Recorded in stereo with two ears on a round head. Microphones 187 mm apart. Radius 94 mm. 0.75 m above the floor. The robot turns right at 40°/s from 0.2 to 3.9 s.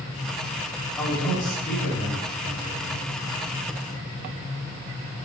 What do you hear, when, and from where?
1.0 s a man speaking: 20° left, 4 m; by 3.0 s 105° left, 4 m